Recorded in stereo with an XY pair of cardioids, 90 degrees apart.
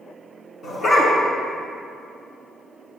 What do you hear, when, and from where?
0.6 s a dog barking: 55° left, 5 m